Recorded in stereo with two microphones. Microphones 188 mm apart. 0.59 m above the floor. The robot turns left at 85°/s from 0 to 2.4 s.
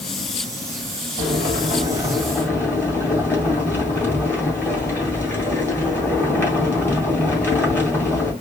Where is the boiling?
90° right, 2 m; by 8.3 s 165° left, 2 m.